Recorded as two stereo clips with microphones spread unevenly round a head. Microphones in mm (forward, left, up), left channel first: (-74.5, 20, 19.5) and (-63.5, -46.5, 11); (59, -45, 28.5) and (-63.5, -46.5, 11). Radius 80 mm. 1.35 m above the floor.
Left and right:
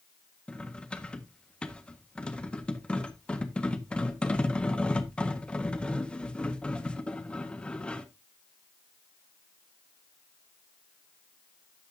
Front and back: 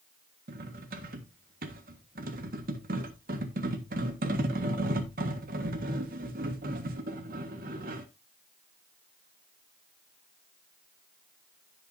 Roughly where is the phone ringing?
I don't hear a phone ringing.